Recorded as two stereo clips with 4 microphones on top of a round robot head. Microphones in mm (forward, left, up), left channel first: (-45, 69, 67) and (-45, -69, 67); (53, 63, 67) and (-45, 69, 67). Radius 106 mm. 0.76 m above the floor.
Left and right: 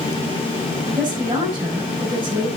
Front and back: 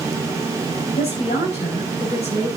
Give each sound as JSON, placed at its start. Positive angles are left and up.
{"t": 1.0, "sound": "a woman speaking", "azimuth_deg": -20, "distance_m": 6.5}